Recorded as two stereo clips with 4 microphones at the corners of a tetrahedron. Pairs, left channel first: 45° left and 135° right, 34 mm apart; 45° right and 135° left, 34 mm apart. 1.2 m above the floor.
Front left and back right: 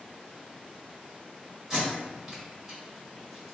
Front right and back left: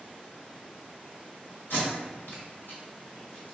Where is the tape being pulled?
60° right, 1.6 m.